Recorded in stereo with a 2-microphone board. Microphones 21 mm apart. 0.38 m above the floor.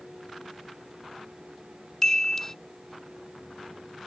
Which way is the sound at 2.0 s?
20° left (ahead or behind).